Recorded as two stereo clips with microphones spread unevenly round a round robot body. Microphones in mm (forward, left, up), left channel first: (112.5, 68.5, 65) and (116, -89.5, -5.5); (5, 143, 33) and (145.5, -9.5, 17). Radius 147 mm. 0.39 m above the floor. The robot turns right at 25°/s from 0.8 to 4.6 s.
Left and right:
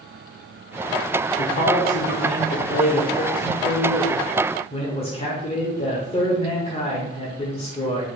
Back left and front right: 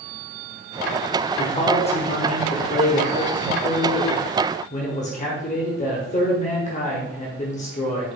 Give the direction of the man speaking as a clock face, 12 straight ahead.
9 o'clock.